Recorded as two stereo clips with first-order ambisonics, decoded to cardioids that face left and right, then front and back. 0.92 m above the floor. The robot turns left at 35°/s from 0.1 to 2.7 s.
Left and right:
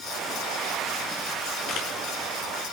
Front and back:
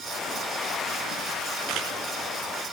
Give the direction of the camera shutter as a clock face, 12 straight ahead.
7 o'clock.